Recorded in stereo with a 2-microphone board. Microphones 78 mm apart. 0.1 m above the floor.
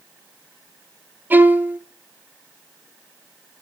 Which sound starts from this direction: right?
A violin, at 1.3 s.